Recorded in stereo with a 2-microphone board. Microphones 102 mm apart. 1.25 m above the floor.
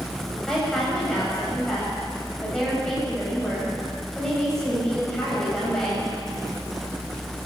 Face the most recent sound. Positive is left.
turn(degrees=5)  # may be behind; listen again after turning